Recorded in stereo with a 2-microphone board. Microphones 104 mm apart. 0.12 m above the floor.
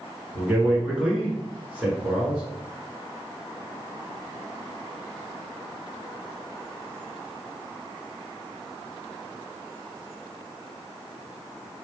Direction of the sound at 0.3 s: 10° right (ahead or behind).